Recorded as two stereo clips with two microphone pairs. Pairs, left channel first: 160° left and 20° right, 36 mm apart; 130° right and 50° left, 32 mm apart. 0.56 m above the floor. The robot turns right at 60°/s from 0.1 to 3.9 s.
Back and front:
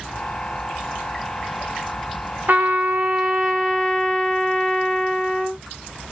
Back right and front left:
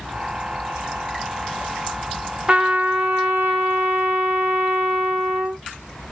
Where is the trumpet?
10° right, 1.1 m; by 5.6 s 75° left, 1.1 m.